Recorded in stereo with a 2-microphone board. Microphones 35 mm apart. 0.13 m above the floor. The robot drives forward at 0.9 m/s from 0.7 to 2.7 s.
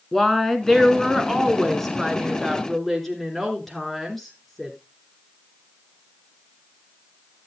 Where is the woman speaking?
10° left (ahead or behind), 1.6 m; by 4.8 s 5° left (ahead or behind), 2 m.